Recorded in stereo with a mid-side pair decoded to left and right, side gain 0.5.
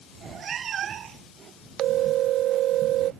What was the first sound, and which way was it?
A cat meowing, 50° right.